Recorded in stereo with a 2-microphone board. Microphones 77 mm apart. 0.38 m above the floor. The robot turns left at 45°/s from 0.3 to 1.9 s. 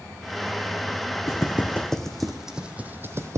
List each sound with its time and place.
1.3 s footsteps: 40° left (ahead or behind), 1.1 m; by 3.4 s 45° right (ahead or behind), 0.5 m